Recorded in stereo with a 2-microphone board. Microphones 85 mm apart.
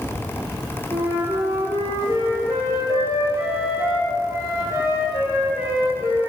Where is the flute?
40° right (ahead or behind), 2.5 m.